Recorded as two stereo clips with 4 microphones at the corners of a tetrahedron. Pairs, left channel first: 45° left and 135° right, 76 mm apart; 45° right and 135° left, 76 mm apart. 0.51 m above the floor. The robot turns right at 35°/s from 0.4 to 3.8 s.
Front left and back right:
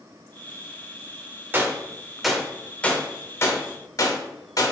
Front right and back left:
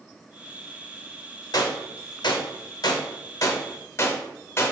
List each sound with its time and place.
1.5 s a gunshot: 75° right, 0.6 m; by 4.7 s 5° left, 0.6 m